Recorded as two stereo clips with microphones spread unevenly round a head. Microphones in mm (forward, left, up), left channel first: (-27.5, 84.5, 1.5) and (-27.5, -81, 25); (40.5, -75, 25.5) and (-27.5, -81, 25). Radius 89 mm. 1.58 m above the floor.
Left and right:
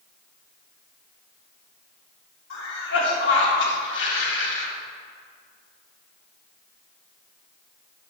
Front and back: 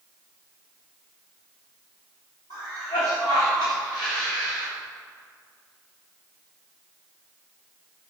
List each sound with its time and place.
2.5 s a cough: 65° left, 1.8 m